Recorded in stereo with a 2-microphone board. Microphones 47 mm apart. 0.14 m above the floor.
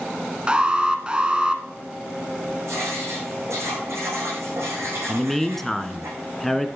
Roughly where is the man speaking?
Centre.